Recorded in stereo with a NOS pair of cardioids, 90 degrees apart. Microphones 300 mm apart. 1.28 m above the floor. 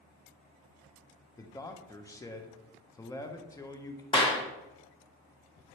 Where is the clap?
15° left, 1.1 m.